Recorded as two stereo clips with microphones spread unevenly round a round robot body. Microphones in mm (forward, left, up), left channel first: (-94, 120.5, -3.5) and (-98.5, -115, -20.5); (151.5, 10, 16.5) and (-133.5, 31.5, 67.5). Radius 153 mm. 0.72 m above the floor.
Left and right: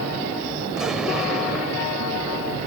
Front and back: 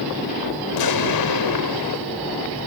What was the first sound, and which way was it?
An explosion, 5° right.